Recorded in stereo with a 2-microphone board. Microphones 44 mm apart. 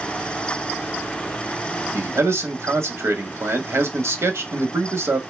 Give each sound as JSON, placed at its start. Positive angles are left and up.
{"t": 1.9, "sound": "a man speaking", "side_deg": -75, "distance_m": 0.8}